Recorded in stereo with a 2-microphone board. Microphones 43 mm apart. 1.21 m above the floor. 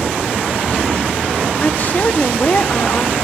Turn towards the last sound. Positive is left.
turn(degrees=40)  # may be behind; listen again after turning